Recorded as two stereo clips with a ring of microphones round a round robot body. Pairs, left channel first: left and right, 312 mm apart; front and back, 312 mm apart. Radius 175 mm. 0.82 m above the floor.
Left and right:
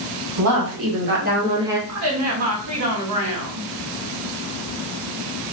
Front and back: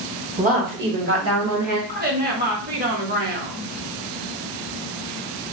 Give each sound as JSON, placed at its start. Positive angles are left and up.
{"t": 0.4, "sound": "a woman speaking", "azimuth_deg": -115, "distance_m": 1.9}
{"t": 1.9, "sound": "a woman speaking", "azimuth_deg": -120, "distance_m": 1.5}